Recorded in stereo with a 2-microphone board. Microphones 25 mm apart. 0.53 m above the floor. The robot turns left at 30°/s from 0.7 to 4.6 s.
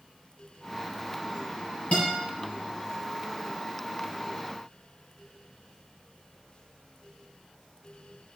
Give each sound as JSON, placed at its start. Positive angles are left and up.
{"t": 1.9, "sound": "a guitar", "side_deg": 65, "distance_m": 4.5}